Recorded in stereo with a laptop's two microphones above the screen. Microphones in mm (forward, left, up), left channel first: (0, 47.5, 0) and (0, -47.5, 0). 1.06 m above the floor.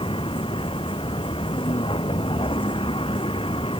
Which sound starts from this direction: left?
A vehicle, at 0.0 s.